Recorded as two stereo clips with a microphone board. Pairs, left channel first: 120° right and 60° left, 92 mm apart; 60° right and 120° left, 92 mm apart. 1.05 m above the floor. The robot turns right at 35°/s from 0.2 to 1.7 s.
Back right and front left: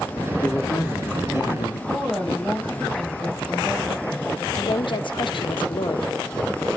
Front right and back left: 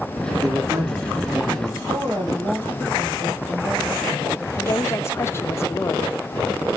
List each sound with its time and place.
0.4 s a man speaking: 165° left, 2.5 m; by 1.8 s 155° right, 2.5 m
1.9 s a woman speaking: 145° left, 5 m
4.5 s a woman speaking: 120° right, 0.8 m